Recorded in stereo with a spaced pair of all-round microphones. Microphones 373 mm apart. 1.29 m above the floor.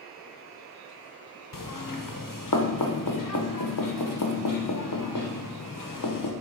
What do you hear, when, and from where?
1.5 s knocking: 60° left (ahead or behind), 0.5 m